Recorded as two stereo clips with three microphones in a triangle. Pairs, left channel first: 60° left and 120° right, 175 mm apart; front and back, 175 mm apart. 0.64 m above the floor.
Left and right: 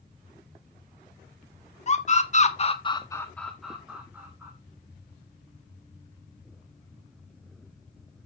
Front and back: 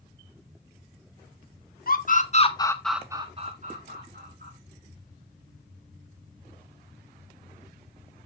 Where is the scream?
15° left, 1.8 m; by 4.5 s 165° left, 2.5 m.